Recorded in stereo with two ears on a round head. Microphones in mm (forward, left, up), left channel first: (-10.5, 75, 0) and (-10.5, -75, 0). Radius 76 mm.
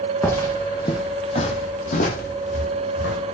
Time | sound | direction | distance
0.2 | footsteps | 10° left (ahead or behind) | 1.5 m